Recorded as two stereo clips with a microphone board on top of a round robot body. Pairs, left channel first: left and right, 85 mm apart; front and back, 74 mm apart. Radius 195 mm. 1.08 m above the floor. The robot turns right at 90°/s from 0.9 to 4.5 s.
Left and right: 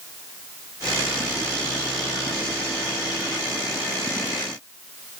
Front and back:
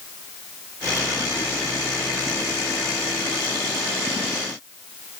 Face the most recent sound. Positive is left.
No sound to turn to.